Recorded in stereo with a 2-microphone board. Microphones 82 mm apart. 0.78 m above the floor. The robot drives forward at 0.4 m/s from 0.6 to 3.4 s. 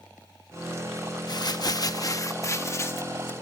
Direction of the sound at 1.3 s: 55° left (ahead or behind).